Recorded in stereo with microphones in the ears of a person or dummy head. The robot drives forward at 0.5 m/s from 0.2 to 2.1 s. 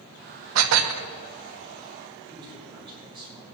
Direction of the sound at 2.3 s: 20° right (ahead or behind).